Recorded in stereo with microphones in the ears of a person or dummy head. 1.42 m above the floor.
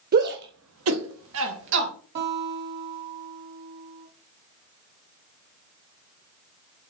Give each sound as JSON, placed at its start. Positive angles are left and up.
{"t": 0.1, "sound": "a shout", "side_deg": -50, "distance_m": 1.3}
{"t": 2.1, "sound": "a guitar", "side_deg": -60, "distance_m": 2.0}